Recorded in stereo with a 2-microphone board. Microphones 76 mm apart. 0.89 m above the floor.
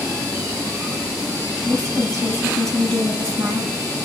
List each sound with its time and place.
1.6 s a woman speaking: 40° right (ahead or behind), 4.5 m